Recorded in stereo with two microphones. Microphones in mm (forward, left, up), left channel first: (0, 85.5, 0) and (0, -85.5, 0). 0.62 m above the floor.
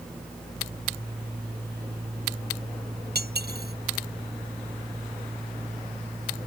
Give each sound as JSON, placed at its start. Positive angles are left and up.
{"t": 3.1, "sound": "cutlery clinking", "side_deg": -70}